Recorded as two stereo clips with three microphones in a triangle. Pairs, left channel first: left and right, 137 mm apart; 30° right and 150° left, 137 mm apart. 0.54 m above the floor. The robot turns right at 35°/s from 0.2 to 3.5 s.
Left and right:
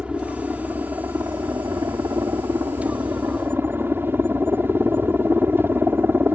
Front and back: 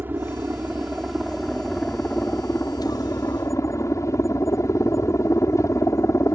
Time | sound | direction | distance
0.0 | a helicopter | 160° right | ?